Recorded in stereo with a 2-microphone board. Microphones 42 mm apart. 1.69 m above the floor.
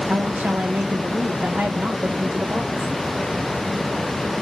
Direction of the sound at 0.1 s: 25° right (ahead or behind).